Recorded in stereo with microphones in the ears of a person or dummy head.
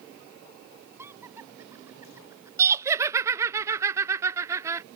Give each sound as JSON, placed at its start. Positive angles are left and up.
{"t": 1.0, "sound": "laughter", "side_deg": -20}
{"t": 2.6, "sound": "laughter", "side_deg": -15}